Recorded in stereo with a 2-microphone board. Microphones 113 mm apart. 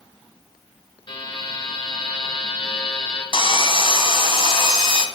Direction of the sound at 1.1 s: 45° left (ahead or behind).